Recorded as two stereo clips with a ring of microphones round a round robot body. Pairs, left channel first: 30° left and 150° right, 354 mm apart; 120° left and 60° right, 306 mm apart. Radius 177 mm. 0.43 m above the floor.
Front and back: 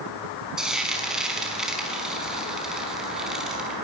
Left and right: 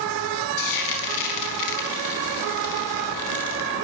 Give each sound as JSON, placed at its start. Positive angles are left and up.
{"t": 0.6, "sound": "frying", "azimuth_deg": 120, "distance_m": 5.0}